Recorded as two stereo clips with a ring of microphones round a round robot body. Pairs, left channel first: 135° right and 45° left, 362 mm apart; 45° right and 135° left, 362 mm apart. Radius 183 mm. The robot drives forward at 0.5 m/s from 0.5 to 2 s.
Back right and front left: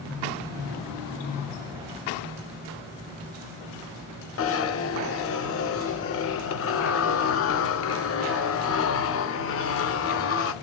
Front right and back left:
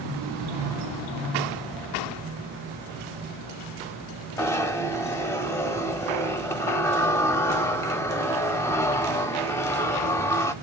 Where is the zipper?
125° right, 0.5 m.